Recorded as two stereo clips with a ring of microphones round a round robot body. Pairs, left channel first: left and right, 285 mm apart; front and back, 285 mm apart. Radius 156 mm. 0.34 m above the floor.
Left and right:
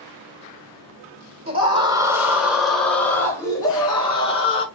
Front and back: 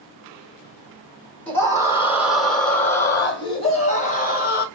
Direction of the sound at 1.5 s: 75° right.